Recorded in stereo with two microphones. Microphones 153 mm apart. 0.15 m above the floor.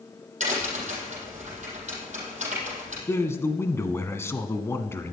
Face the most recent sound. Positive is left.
turn(degrees=15)  # may be behind; listen again after turning